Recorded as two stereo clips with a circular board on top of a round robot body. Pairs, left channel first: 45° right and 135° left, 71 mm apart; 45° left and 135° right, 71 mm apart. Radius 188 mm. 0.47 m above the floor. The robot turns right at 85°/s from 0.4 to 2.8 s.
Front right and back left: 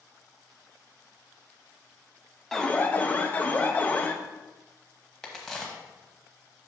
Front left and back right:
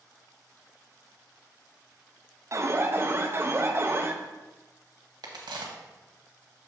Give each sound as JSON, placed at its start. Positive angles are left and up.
{"t": 2.5, "sound": "an alarm", "azimuth_deg": -130, "distance_m": 1.0}
{"t": 5.2, "sound": "a crack", "azimuth_deg": -130, "distance_m": 0.9}